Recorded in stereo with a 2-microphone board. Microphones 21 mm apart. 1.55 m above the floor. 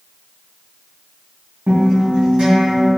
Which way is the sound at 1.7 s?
50° right (ahead or behind).